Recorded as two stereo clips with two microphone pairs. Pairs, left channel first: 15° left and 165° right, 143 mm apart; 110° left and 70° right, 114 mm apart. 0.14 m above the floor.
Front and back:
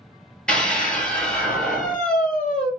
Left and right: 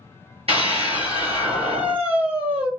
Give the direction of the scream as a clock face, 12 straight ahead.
2 o'clock.